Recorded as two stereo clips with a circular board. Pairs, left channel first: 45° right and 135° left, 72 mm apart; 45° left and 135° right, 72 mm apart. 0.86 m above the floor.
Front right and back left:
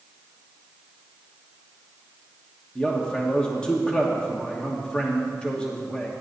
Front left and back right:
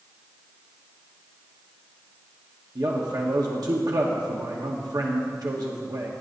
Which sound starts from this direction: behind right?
A man speaking, at 2.8 s.